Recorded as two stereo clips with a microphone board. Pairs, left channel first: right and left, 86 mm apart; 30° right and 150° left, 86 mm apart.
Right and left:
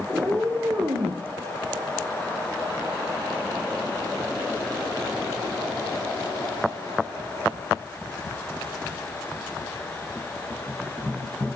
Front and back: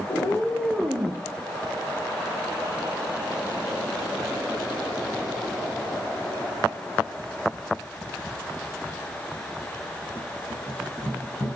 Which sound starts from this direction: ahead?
A cat meowing, at 0.1 s.